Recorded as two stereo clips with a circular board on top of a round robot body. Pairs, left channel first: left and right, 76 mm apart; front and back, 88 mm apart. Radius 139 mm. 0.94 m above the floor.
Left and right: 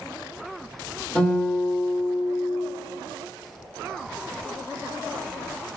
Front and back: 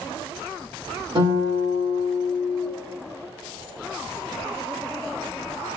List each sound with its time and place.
1.1 s a guitar: 175° left, 1.8 m